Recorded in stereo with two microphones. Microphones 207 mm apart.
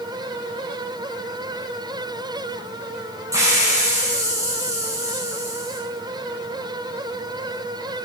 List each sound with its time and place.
3.3 s a hiss: 15° right (ahead or behind), 7.5 m